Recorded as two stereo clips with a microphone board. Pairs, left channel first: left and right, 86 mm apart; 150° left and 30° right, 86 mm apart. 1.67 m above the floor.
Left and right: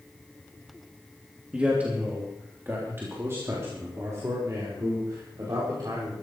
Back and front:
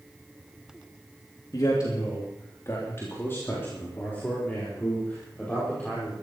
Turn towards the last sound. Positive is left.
turn(degrees=-135)